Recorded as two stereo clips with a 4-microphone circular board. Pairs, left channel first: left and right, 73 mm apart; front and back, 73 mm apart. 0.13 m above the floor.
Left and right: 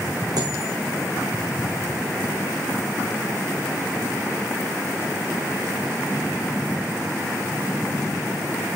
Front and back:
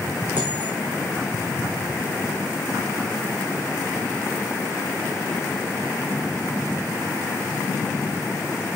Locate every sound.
0.4 s a dropped coin: 115° right, 3 m